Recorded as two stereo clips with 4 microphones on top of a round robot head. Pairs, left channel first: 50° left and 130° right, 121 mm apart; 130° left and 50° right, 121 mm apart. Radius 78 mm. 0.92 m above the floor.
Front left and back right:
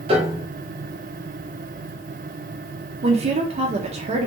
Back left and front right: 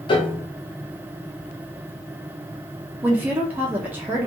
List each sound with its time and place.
0.1 s a piano: 175° right, 0.7 m
3.0 s a woman speaking: 120° right, 0.5 m